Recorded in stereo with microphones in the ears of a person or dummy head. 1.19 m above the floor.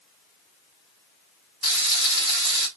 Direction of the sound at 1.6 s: 60° left (ahead or behind).